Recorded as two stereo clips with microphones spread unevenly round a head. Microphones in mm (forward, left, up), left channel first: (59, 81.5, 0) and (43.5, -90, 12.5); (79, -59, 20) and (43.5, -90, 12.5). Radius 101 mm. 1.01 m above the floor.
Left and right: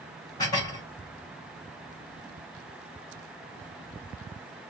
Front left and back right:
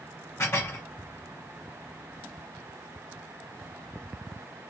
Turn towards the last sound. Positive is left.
turn(degrees=15)